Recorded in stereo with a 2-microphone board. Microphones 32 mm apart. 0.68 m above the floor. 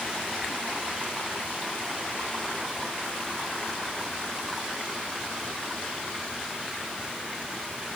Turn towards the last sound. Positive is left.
No sound to turn to.